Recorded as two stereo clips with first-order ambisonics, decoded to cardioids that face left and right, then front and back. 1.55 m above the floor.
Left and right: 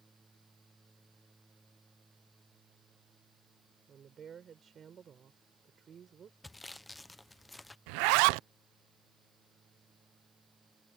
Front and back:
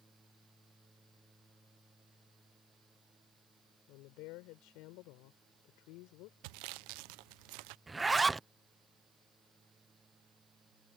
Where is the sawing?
170° left.